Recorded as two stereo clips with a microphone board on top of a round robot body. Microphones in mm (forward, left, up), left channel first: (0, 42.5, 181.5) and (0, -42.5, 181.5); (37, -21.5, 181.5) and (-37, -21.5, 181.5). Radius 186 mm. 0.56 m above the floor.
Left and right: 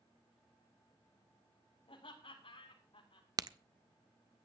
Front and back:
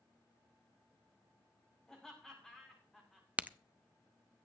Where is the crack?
115° right, 0.8 m.